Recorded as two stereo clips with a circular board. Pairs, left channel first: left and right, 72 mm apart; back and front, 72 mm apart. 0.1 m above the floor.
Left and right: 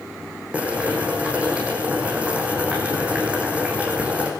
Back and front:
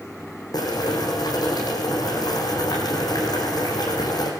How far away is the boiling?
About 6 m.